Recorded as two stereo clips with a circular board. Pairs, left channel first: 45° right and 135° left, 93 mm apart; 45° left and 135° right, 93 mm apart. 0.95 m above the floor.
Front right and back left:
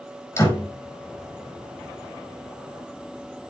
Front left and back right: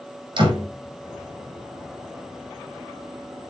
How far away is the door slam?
About 5 m.